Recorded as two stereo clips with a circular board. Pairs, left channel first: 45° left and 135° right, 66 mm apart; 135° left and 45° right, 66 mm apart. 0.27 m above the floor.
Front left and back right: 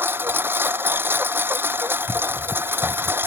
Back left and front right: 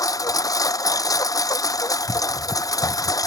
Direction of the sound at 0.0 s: 165° left.